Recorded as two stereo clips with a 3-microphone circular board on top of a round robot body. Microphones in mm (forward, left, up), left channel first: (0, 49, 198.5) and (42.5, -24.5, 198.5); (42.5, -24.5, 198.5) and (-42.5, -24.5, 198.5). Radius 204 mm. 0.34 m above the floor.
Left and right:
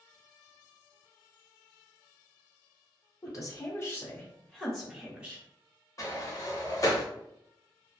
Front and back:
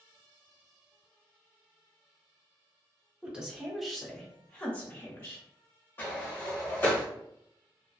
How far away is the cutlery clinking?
No cutlery clinking in this recording.